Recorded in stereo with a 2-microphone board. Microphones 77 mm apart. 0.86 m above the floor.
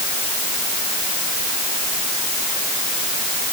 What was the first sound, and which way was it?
Only background noise.